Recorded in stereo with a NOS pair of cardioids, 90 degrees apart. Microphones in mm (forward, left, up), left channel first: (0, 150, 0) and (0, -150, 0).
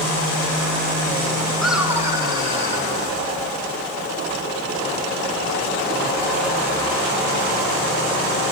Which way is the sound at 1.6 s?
Straight ahead.